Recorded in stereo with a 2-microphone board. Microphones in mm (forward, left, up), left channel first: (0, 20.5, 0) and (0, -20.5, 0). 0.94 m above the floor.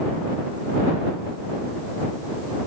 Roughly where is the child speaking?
I don't hear a child speaking.